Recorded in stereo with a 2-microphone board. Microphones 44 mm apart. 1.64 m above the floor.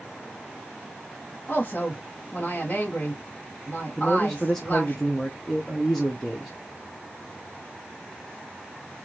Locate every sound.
1.5 s a woman speaking: 35° left (ahead or behind), 2.0 m
4.0 s a man speaking: 10° left (ahead or behind), 0.8 m